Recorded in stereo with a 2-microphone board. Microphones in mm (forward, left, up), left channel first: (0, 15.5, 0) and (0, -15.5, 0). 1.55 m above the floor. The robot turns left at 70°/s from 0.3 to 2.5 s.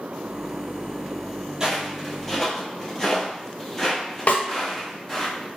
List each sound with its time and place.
1.6 s footsteps: 15° right (ahead or behind), 1.7 m; by 5.3 s 15° left (ahead or behind), 2 m
4.3 s a snare drum: 50° left (ahead or behind), 0.8 m